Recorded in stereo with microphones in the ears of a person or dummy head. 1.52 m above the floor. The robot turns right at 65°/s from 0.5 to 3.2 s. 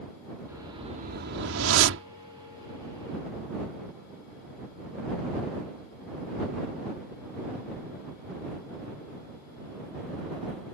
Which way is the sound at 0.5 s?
170° right.